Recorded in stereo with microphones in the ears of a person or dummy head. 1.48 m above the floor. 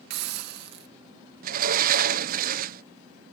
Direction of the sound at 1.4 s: 50° right (ahead or behind).